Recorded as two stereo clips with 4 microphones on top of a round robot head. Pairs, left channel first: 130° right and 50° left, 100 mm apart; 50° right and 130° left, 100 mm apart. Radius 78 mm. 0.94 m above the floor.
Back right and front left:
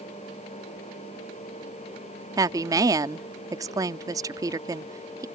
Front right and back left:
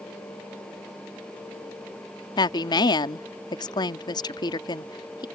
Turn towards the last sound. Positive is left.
turn(degrees=-5)